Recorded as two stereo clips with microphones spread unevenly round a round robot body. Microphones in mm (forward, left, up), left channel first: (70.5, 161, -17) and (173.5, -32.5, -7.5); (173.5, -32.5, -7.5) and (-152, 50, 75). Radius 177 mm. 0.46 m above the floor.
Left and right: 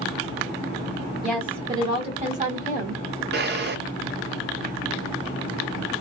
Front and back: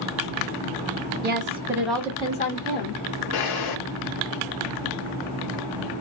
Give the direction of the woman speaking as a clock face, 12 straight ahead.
5 o'clock.